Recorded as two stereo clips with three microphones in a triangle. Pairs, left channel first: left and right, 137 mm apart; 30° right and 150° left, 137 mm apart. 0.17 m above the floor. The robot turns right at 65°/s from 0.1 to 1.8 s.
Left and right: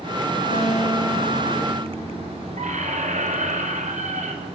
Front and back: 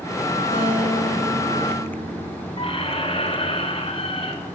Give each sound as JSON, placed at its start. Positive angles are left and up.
{"t": 0.5, "sound": "a guitar", "azimuth_deg": 90, "distance_m": 5.5}
{"t": 2.6, "sound": "a squeak", "azimuth_deg": -75, "distance_m": 1.1}